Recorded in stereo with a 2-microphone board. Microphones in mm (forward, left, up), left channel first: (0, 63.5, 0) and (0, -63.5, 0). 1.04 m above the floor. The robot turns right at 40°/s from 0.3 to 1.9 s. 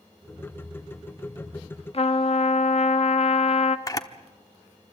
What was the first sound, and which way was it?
A trumpet, 50° left (ahead or behind).